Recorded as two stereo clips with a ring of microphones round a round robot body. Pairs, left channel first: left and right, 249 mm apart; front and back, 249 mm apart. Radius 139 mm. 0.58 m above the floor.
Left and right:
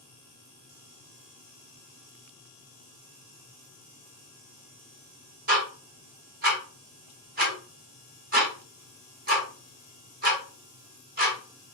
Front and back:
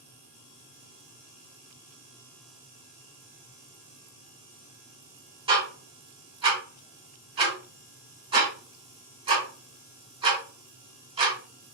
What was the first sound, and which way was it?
Ticking, 120° right.